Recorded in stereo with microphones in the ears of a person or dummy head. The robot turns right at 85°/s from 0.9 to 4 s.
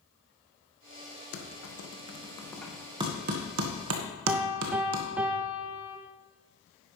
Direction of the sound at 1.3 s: 60° left (ahead or behind).